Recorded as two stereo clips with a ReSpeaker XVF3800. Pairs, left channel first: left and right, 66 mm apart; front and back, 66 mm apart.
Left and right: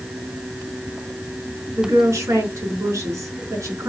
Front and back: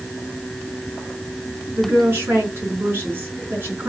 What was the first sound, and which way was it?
A woman speaking, 125° right.